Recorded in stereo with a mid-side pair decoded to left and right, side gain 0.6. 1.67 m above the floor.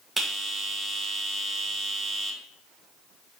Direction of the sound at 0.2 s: 20° right.